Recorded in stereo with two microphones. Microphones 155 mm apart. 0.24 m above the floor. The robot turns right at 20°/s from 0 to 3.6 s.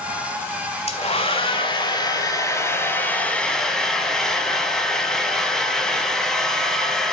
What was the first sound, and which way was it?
A hair dryer, 120° left.